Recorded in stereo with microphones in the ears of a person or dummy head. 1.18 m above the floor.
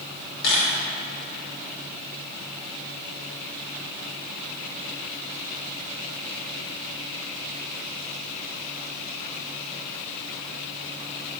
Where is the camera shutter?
60° left (ahead or behind), 2.5 m.